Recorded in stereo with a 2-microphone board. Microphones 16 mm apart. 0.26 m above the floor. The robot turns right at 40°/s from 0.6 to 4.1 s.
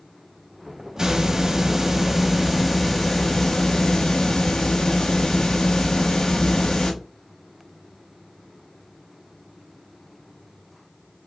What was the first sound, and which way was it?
A hiss, 60° right.